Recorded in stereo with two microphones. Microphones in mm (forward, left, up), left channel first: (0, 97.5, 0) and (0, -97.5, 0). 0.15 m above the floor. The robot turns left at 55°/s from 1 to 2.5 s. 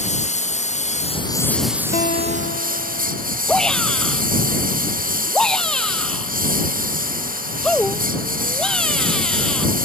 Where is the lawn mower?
35° left; by 9.9 s 45° right.